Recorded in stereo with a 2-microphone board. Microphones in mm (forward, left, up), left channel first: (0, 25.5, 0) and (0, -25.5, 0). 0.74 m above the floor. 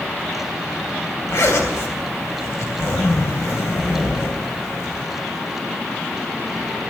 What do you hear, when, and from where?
1.3 s a zipper: 70° left (ahead or behind), 3 m